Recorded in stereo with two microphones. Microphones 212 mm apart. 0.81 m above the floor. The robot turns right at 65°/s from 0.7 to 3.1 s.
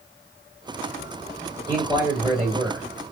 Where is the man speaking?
160° left, 1.6 m; by 3.0 s 115° right, 1.6 m.